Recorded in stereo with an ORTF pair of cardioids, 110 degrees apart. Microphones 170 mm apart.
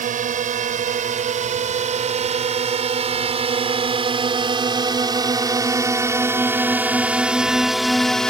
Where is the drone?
50° right; by 8.3 s 5° left.